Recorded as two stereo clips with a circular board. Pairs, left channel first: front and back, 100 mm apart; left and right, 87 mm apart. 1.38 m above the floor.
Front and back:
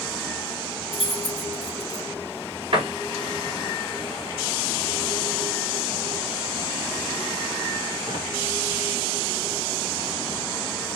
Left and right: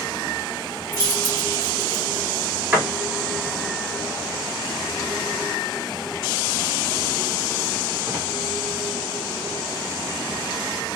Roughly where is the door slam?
Behind.